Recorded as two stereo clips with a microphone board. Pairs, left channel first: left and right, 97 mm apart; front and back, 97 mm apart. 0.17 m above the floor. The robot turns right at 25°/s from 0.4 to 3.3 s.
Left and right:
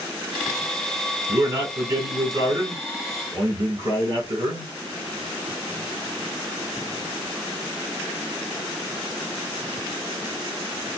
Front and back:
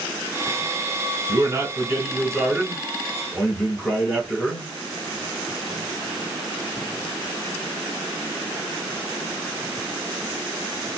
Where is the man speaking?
135° right, 1.7 m; by 4.7 s 85° right, 1.7 m.